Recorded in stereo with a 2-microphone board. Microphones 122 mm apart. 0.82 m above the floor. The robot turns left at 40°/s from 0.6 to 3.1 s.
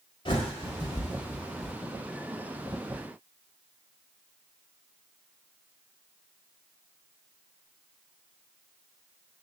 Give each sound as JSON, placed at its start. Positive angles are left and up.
{"t": 0.2, "sound": "a bird", "side_deg": 45, "distance_m": 1.3}